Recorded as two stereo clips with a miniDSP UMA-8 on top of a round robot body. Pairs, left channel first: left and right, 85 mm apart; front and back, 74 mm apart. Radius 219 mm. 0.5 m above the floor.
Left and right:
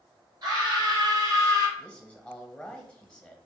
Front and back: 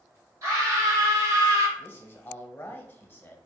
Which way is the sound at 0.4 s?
130° right.